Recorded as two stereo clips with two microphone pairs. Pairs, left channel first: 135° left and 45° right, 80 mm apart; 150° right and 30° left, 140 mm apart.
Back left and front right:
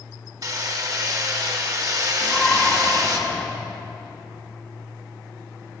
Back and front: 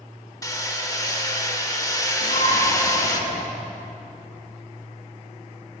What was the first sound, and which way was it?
Hammering, 85° right.